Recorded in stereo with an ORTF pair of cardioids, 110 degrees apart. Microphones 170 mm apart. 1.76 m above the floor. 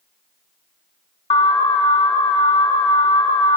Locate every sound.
1.3 s an alarm: 40° left, 1.1 m